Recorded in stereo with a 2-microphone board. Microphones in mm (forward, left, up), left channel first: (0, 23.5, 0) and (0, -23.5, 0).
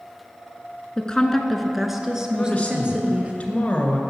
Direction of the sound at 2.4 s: 30° left (ahead or behind).